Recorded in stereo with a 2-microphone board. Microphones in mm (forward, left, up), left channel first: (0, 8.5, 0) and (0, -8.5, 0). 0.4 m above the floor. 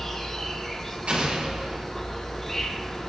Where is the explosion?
80° right, 8 m.